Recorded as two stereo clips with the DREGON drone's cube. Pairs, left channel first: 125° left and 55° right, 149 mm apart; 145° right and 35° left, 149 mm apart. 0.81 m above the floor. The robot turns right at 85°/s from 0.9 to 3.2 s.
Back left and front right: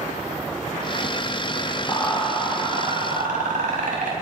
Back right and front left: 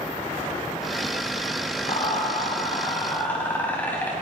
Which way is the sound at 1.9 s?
Straight behind.